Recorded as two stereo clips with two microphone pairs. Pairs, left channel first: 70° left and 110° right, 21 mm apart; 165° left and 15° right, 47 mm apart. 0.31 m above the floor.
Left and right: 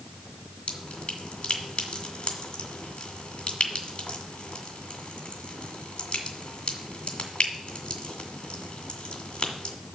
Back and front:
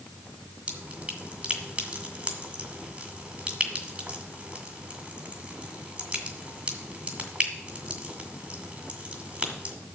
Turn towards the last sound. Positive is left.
turn(degrees=45)